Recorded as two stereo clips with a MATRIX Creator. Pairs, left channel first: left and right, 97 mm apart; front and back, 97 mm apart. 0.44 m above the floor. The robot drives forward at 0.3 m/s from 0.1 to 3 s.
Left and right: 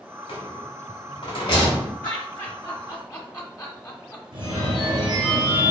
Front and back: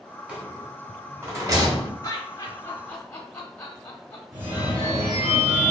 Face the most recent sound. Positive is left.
turn(degrees=-125)